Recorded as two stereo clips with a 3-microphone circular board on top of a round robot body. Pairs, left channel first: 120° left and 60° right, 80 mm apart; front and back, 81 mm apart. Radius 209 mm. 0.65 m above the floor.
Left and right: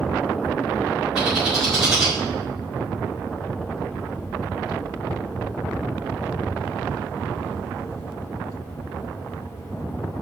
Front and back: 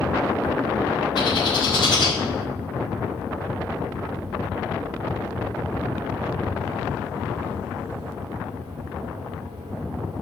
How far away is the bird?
About 4.5 m.